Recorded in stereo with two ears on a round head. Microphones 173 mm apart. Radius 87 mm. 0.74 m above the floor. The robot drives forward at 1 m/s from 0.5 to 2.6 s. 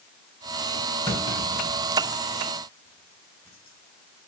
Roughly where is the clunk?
Left.